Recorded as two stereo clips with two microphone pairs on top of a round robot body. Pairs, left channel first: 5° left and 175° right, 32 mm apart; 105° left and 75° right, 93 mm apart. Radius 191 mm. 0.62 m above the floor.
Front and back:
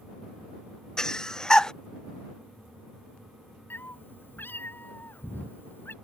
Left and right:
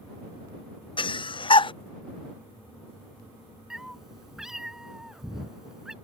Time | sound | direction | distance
1.0 | breathing | 75° left | ?
3.7 | a cat meowing | 10° left | ?